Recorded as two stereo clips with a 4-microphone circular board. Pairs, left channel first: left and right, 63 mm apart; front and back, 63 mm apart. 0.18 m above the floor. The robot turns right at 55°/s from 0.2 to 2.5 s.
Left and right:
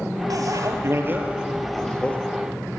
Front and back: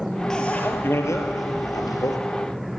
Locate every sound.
0.3 s a bicycle bell: 80° right, 3 m; by 2.2 s 20° left, 3 m